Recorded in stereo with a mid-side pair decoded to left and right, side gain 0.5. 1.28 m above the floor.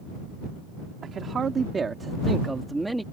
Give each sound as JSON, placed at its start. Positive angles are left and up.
{"t": 1.0, "sound": "a man speaking", "azimuth_deg": -45}